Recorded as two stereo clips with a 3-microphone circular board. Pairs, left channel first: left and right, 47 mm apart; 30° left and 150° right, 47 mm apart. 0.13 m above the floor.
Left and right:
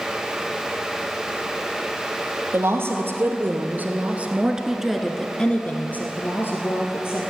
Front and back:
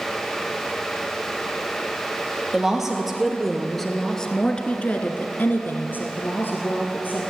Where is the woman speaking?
70° right, 2.5 m; by 7.2 s 70° left, 2.5 m.